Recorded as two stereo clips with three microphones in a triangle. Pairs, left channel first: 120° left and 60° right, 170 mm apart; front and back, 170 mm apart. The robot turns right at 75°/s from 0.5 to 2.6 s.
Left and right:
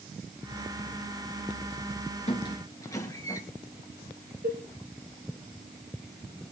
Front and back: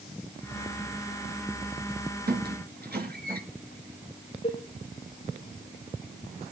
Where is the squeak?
165° left, 2.5 m; by 3.4 s 170° right, 2.5 m.